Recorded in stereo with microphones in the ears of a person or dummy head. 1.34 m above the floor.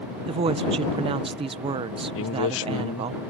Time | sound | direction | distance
0.3 | a woman speaking | 30° right (ahead or behind) | ?
2.1 | a man speaking | 70° left (ahead or behind) | ?